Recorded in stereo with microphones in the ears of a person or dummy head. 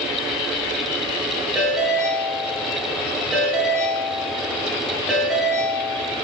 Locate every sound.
1.6 s a ringtone: centre (ahead or behind), 5 m